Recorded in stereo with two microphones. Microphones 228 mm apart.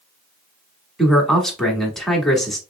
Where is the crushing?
No crushing in this recording.